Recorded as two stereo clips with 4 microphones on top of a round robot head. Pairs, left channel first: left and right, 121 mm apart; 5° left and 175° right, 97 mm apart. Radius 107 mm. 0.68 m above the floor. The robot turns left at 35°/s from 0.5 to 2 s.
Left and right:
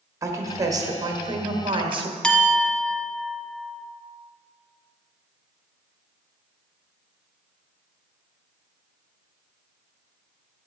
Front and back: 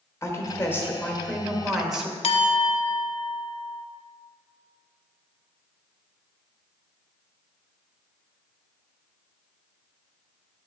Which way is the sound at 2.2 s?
5° left.